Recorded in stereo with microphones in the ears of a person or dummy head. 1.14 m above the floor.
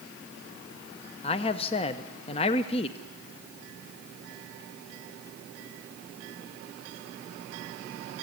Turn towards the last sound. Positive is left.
turn(degrees=30)  # may be behind; listen again after turning